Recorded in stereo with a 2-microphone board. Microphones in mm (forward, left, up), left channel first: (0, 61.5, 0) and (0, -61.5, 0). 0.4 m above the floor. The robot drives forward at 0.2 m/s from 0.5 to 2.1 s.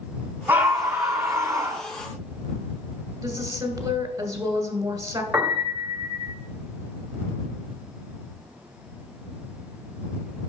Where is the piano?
Centre (ahead or behind), 1.7 m.